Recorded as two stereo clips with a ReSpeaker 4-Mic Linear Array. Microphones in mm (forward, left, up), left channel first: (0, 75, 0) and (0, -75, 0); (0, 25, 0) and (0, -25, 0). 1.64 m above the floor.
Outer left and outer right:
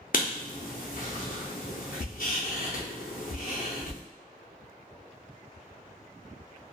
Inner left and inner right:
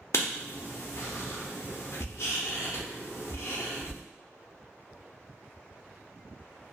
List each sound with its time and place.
0.1 s writing: 70° left (ahead or behind), 0.6 m